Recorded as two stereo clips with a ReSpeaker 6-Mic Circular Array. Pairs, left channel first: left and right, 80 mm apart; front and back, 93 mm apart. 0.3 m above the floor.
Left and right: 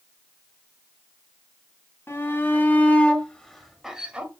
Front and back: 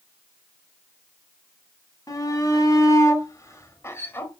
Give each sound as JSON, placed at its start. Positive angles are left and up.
{"t": 2.1, "sound": "a shout", "azimuth_deg": 40, "distance_m": 2.0}